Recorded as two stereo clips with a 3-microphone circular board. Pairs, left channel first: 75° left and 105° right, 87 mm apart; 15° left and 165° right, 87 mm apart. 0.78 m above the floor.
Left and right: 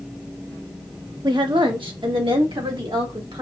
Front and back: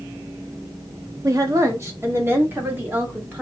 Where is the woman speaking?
125° right, 1.0 m; by 3.4 s 100° right, 2 m.